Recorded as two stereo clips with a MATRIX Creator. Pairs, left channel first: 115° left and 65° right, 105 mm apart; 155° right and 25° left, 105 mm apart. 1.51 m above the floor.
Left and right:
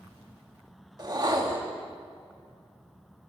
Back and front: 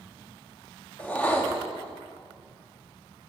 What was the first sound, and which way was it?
A whoosh, 90° right.